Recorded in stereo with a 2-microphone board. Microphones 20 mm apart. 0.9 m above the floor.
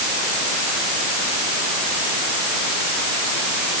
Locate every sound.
Only background noise.